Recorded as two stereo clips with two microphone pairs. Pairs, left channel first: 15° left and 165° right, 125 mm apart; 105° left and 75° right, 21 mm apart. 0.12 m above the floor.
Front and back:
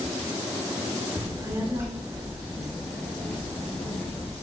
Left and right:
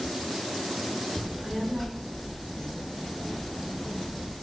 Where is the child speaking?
160° right, 1.3 m; by 4.3 s 85° left, 2.5 m.